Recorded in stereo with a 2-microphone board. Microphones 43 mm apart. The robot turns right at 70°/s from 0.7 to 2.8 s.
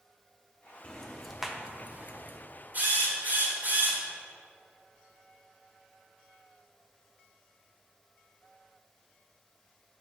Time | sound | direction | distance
0.8 | ticking | 20° left (ahead or behind) | 0.6 m
2.7 | a drill | 40° right (ahead or behind) | 1.8 m